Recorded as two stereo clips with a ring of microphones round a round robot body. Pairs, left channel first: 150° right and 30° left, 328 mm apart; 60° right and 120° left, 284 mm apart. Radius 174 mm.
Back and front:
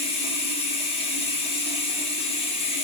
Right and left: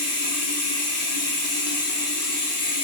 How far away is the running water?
About 1.0 m.